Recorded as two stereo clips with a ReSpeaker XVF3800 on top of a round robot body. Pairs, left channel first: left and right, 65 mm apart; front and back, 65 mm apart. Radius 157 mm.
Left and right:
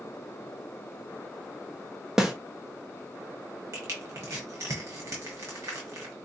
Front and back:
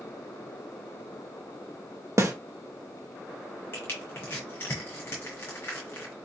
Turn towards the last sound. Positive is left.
turn(degrees=-50)